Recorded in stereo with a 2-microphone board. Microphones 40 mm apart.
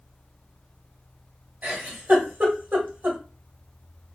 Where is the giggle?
50° right (ahead or behind), 1.8 m.